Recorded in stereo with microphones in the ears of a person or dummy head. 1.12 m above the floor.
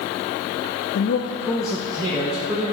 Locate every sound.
0.9 s a man speaking: 60° left (ahead or behind), 0.6 m; by 2.7 s 30° right (ahead or behind), 1.4 m